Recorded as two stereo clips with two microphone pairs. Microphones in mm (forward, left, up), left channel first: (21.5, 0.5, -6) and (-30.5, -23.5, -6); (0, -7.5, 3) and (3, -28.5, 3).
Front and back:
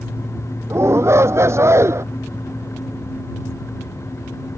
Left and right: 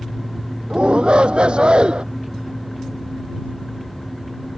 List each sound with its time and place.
0.7 s a shout: 120° right